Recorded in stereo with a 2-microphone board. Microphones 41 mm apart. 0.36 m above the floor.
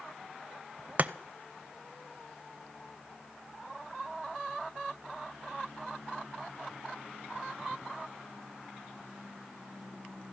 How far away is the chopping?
About 0.6 m.